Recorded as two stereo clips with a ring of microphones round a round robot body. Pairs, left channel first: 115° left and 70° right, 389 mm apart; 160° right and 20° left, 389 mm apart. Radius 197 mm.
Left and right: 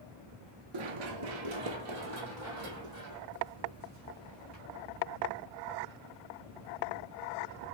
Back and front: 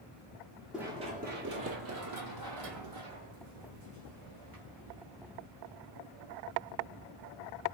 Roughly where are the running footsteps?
Ahead right.